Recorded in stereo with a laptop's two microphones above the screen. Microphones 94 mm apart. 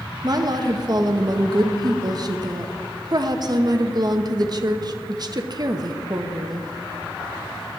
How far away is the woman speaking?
About 0.7 m.